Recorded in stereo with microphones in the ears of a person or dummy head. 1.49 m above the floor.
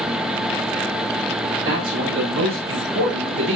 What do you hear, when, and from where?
1.6 s a man speaking: 70° right (ahead or behind), 5 m; by 3.6 s 55° right (ahead or behind), 5 m